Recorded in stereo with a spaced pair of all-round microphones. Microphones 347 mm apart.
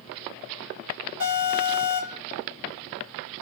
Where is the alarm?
35° left (ahead or behind), 2.5 m.